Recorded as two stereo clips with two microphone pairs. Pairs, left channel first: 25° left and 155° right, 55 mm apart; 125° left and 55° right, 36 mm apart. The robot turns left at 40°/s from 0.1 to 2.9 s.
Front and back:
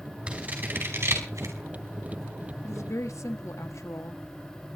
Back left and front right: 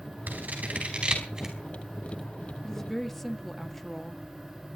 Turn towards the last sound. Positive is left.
turn(degrees=40)